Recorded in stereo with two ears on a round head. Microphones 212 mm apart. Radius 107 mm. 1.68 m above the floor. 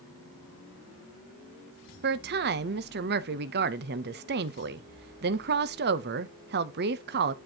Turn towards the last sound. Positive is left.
turn(degrees=-40)  # may be behind; listen again after turning